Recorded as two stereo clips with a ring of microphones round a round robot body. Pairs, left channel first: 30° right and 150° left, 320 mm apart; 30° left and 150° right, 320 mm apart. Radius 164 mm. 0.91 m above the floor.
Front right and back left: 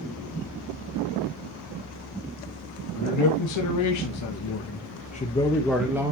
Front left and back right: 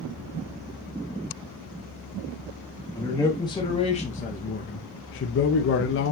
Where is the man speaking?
50° right, 1.6 m; by 6.1 s 75° left, 1.0 m.